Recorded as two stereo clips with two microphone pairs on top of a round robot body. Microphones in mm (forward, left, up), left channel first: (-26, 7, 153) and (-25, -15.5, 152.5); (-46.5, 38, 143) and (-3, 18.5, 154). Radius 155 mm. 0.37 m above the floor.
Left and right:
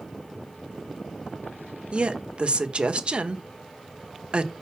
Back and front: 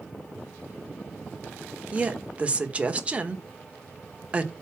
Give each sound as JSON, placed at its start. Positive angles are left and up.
{"t": 1.9, "sound": "a woman speaking", "azimuth_deg": -95, "distance_m": 1.7}